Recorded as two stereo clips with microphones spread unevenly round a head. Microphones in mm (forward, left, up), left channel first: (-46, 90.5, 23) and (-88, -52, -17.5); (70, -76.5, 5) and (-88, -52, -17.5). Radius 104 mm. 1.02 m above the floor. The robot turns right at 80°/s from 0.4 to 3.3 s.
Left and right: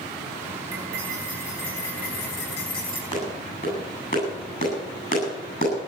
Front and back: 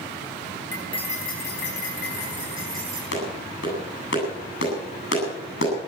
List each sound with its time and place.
0.7 s cutlery clinking: 85° right, 4.5 m; by 3.0 s 100° left, 4.5 m
3.1 s a clap: 5° left, 8.5 m; by 5.7 s 20° left, 8.5 m